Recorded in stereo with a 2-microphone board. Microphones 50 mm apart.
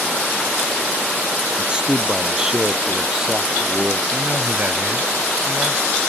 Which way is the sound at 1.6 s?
20° right (ahead or behind).